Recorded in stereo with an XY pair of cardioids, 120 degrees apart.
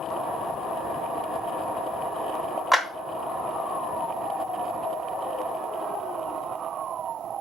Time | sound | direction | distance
2.7 | a clap | 5° right | 1.0 m